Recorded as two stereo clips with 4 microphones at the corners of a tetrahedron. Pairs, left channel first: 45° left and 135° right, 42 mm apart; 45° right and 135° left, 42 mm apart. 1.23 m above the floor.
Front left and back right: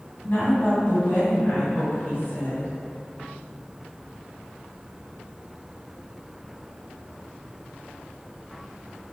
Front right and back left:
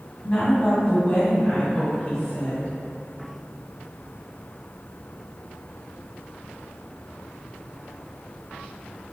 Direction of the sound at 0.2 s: 5° left.